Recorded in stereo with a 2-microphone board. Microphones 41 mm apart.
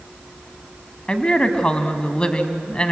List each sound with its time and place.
1.1 s a woman speaking: 25° left (ahead or behind), 1.4 m